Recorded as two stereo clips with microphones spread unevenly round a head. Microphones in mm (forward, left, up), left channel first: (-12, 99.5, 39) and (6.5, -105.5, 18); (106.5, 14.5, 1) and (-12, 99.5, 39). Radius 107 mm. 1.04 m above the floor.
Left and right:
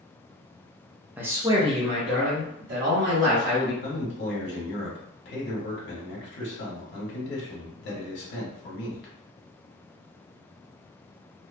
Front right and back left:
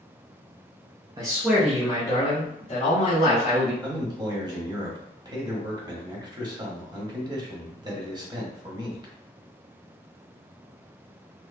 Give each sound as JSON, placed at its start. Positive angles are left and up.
{"t": 1.2, "sound": "a man speaking", "azimuth_deg": -150, "distance_m": 0.6}
{"t": 3.8, "sound": "a man speaking", "azimuth_deg": 80, "distance_m": 1.2}